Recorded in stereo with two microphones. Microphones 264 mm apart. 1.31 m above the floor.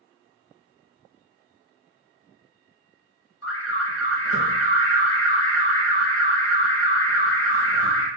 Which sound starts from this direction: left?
An alarm, at 3.4 s.